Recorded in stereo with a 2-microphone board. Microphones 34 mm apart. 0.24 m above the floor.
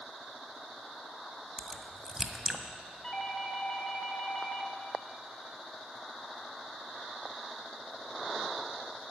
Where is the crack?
10° right (ahead or behind), 1.6 m.